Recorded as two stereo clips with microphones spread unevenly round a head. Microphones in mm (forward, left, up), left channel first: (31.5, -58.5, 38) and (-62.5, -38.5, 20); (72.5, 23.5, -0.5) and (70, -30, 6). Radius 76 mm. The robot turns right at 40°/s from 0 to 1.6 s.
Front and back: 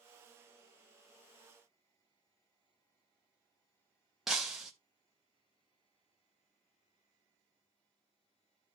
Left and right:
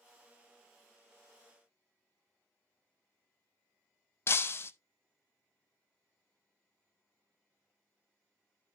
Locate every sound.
4.3 s breaking glass: 70° left, 0.8 m